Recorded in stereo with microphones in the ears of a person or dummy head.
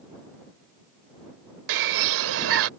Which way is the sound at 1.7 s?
70° right (ahead or behind).